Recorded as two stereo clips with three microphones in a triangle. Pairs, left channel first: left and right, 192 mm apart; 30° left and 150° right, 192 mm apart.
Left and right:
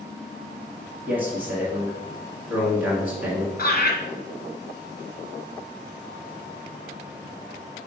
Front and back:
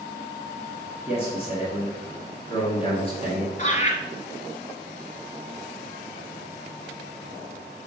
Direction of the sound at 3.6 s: 65° left.